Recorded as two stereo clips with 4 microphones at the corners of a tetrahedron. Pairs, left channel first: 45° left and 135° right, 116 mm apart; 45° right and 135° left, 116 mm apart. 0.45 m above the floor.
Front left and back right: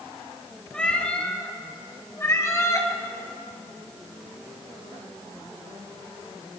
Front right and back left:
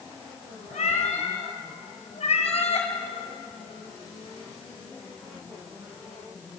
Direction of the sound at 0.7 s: 35° right.